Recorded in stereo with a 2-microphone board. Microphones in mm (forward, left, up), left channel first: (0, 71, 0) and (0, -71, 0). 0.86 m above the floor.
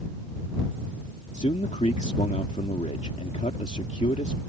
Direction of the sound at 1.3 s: 55° left (ahead or behind).